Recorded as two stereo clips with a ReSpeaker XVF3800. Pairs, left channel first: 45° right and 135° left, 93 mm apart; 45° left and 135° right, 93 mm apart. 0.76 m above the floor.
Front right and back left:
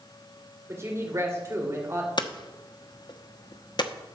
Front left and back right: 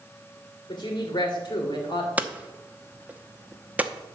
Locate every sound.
0.7 s a woman speaking: 75° left, 3 m
2.2 s hammering: 65° right, 0.8 m